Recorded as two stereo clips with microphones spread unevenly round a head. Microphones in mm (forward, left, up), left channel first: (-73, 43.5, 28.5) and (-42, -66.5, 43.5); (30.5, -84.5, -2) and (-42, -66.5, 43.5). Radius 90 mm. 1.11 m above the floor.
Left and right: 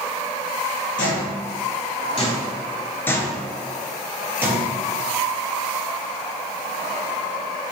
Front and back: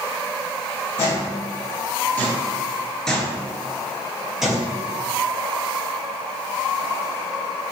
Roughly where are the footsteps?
Left.